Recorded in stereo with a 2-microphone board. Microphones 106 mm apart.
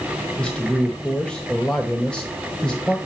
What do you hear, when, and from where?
0.4 s a man speaking: 10° left (ahead or behind), 1.0 m